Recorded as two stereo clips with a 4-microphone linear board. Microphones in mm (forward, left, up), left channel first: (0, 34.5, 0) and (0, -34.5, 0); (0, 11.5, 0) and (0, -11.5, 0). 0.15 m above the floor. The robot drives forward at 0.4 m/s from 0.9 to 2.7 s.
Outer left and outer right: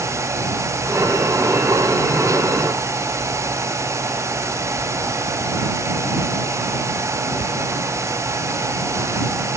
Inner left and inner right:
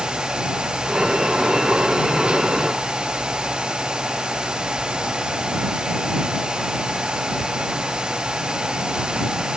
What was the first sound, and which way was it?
Only background noise.